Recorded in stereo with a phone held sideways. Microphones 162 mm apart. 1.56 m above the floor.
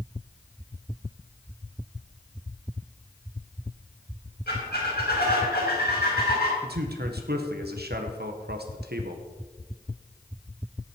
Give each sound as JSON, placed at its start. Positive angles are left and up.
{"t": 4.5, "sound": "a squeak", "side_deg": 80, "distance_m": 4.5}
{"t": 6.6, "sound": "a man speaking", "side_deg": -80, "distance_m": 1.5}